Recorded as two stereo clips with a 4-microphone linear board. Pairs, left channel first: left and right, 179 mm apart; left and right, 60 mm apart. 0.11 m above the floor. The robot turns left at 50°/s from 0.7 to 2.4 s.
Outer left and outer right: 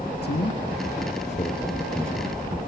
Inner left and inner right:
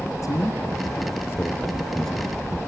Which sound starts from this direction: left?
A man speaking, at 0.2 s.